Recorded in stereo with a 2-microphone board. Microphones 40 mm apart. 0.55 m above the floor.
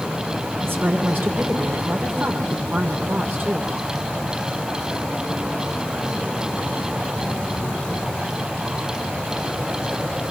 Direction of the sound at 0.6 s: 60° right (ahead or behind).